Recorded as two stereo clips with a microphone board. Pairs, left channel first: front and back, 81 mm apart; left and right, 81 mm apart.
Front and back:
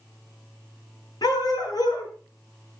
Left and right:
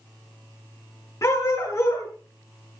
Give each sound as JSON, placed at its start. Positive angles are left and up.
{"t": 1.2, "sound": "a dog barking", "azimuth_deg": 35, "distance_m": 7.5}